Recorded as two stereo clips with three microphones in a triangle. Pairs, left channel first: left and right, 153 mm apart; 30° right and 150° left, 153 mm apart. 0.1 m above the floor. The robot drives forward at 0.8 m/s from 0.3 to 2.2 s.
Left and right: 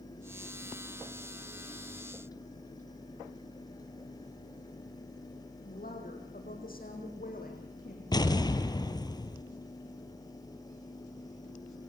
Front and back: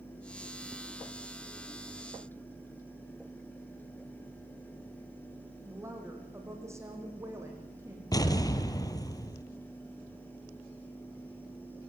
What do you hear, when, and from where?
5.7 s a woman speaking: 80° left, 6 m
8.1 s an explosion: 30° left, 1.3 m